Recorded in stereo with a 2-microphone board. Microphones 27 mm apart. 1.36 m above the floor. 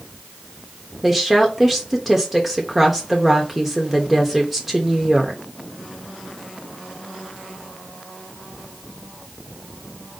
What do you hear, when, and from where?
1.0 s a woman speaking: 5° right (ahead or behind), 0.8 m